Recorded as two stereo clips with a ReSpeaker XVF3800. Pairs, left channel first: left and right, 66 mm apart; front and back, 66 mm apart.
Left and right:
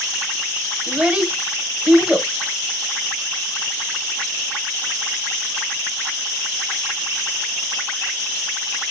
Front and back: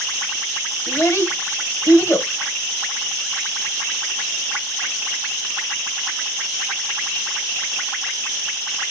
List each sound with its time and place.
0.9 s a child speaking: 15° right, 0.8 m